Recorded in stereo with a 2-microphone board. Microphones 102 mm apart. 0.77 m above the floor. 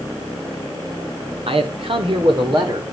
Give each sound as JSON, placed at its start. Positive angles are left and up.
{"t": 1.5, "sound": "a man speaking", "side_deg": -65, "distance_m": 2.5}